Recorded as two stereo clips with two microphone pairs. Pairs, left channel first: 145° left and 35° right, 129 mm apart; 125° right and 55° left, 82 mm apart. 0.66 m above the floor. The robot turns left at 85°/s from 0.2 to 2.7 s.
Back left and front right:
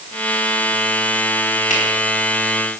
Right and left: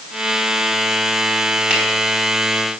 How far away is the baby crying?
No baby crying in this recording.